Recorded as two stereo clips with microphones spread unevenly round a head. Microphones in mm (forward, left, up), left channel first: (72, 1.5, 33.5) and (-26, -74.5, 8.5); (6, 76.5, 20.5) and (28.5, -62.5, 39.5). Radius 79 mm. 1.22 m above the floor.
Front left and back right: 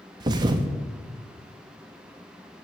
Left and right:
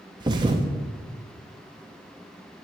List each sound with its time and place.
0.2 s a thud: 90° right, 0.6 m